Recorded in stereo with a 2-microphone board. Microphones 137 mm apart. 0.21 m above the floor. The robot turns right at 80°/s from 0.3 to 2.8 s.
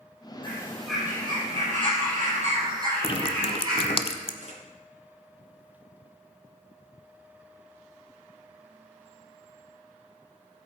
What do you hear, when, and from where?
0.4 s a bird: 145° left, 6 m; by 4.0 s 25° right, 6 m
3.0 s dripping: 40° left (ahead or behind), 0.7 m
4.4 s a camera shutter: 60° right (ahead or behind), 3.5 m